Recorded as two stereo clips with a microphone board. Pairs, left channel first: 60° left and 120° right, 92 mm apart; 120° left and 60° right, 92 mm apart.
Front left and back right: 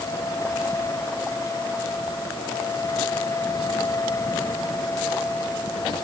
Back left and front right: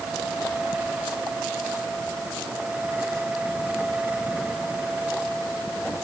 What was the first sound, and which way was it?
Only background noise.